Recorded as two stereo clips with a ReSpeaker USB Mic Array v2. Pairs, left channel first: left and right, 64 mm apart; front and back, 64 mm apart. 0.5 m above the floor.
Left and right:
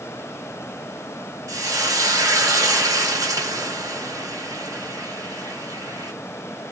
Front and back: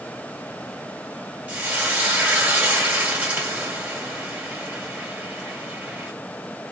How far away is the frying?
About 2.0 m.